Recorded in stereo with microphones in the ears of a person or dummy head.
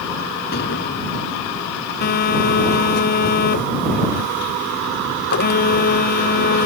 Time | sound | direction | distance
0.5 | an explosion | 60° left (ahead or behind) | ?
2.0 | a phone buzzing | 45° left (ahead or behind) | ?